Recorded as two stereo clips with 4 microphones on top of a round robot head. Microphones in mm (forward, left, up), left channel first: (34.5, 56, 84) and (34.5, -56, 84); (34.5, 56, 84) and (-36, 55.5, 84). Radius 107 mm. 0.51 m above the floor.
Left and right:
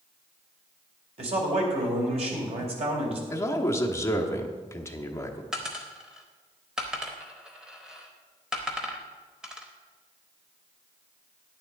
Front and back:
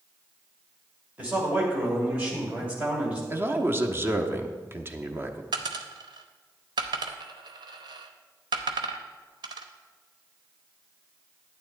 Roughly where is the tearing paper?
No tearing paper in this recording.